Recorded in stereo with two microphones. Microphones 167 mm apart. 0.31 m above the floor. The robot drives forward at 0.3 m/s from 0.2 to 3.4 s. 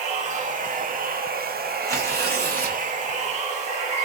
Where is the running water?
50° right (ahead or behind), 0.7 m; by 4.1 s 45° right (ahead or behind), 0.8 m.